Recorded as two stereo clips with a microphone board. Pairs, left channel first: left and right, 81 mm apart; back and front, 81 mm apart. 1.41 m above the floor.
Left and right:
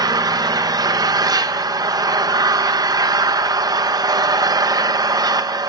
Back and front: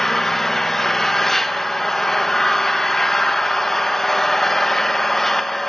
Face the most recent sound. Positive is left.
turn(degrees=-95)